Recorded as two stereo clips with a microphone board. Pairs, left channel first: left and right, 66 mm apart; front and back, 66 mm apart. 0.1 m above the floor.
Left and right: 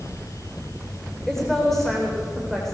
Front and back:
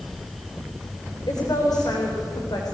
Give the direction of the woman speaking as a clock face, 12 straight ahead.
12 o'clock.